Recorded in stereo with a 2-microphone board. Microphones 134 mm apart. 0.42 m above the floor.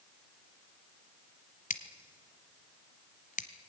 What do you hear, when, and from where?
1.7 s scissors: 80° left, 1.3 m